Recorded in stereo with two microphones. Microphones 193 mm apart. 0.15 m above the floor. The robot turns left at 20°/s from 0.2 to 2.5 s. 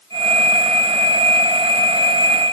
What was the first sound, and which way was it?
Only background noise.